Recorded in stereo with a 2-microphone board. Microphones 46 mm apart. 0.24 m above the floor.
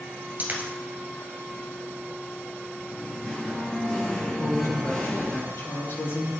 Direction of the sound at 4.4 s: 60° left (ahead or behind).